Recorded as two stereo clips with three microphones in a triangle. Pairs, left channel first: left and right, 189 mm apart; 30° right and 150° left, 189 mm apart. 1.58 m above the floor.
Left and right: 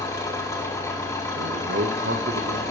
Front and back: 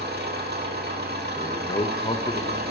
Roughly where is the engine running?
Behind.